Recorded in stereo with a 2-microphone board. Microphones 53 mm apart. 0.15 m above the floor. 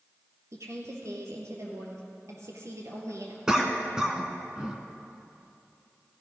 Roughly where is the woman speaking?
Right.